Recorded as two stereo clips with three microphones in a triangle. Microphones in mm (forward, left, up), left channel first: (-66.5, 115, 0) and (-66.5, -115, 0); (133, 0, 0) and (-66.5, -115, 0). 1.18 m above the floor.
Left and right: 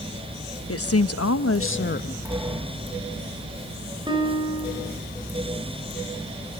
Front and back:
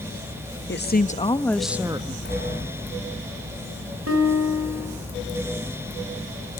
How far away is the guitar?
About 4.5 m.